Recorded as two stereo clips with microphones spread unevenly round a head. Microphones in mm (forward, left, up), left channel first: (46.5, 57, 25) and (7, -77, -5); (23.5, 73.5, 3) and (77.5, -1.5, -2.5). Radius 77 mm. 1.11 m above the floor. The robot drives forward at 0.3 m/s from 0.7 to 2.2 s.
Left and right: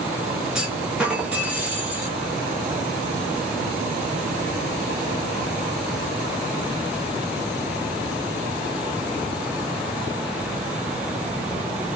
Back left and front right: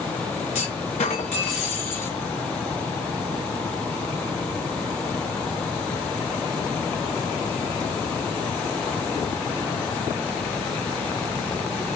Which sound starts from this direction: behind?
A clunk, at 0.6 s.